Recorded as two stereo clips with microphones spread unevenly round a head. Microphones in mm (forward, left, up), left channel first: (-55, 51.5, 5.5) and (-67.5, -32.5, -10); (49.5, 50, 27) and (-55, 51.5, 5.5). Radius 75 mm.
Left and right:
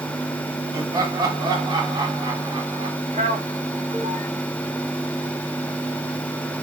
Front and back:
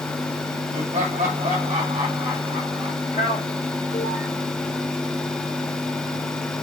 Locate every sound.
0.7 s laughter: 145° right, 3.5 m; by 3.0 s 120° right, 4 m
3.1 s a man speaking: 50° right, 1.4 m